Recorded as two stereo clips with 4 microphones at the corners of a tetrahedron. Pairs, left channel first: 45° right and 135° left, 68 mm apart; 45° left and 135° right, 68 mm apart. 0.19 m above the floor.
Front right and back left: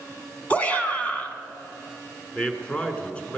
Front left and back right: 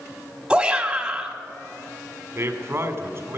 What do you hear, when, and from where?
0.5 s a shout: 80° right, 1.4 m
2.4 s a man speaking: 110° right, 1.5 m